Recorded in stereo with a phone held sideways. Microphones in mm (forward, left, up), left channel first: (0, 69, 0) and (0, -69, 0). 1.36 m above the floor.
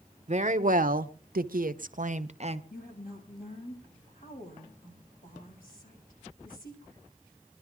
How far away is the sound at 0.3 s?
About 0.9 m.